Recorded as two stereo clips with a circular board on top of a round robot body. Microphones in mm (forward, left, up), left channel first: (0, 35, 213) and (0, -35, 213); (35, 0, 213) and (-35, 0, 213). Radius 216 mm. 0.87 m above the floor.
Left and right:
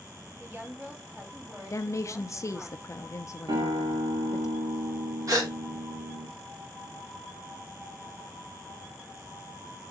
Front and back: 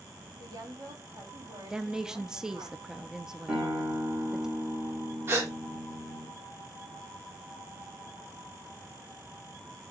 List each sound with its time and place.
0.4 s a woman speaking: 160° right, 3 m
1.7 s a woman speaking: 100° left, 0.7 m
3.5 s a guitar: 110° right, 1.4 m
5.3 s a gasp: 130° right, 1.7 m